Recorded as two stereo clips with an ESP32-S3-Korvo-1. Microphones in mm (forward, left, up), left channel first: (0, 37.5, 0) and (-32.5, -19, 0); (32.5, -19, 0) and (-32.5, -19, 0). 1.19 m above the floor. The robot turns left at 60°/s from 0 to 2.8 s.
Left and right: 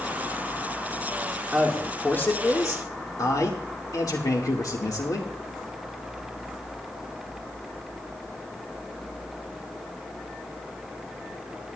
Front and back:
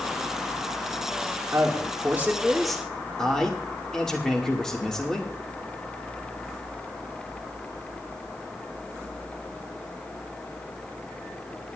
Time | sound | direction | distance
1.5 | a man speaking | 160° left | 2 m